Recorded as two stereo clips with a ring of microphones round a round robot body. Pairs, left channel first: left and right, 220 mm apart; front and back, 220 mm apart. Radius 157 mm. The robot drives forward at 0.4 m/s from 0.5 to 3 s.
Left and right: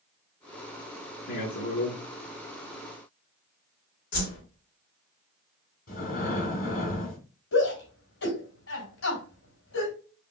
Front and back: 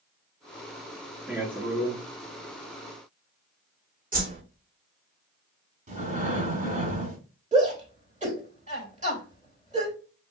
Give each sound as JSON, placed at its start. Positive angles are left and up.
{"t": 1.3, "sound": "a man speaking", "azimuth_deg": 95, "distance_m": 1.6}
{"t": 4.1, "sound": "a whoosh", "azimuth_deg": 130, "distance_m": 2.5}
{"t": 5.9, "sound": "breathing", "azimuth_deg": 130, "distance_m": 1.2}
{"t": 7.5, "sound": "a shout", "azimuth_deg": 120, "distance_m": 3.0}